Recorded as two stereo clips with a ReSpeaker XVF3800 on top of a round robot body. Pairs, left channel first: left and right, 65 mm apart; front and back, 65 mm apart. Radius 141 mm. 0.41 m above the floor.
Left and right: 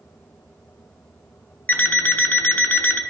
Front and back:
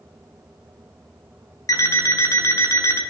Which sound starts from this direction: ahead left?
An alarm clock, at 1.7 s.